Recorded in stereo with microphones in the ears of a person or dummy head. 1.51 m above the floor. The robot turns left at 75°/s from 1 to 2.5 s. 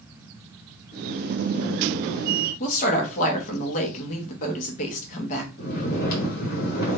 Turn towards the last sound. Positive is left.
turn(degrees=55)  # may be behind; listen again after turning